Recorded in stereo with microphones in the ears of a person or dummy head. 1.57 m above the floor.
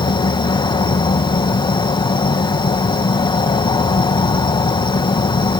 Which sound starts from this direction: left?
An insect, at 0.0 s.